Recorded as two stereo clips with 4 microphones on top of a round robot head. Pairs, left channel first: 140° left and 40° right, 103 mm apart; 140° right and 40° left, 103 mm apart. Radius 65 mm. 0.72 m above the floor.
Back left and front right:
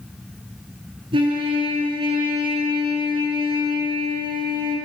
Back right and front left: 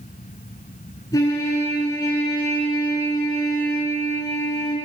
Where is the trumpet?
80° right, 6 m.